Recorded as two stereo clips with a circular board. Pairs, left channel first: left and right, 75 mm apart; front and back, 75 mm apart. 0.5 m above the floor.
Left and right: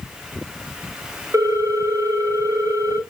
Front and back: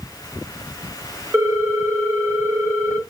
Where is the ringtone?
125° right, 1.1 m.